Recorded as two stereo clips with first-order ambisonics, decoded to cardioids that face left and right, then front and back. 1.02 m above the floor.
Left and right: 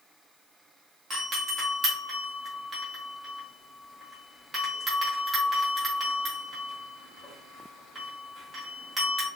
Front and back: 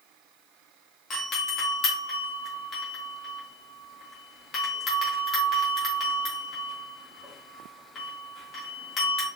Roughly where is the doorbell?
Ahead right.